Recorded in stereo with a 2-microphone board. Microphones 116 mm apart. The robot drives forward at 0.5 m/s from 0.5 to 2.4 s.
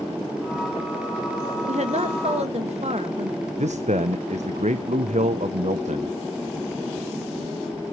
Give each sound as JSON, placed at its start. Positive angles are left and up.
{"t": 1.7, "sound": "a woman speaking", "side_deg": -75, "distance_m": 1.7}
{"t": 3.6, "sound": "a man speaking", "side_deg": -80, "distance_m": 0.7}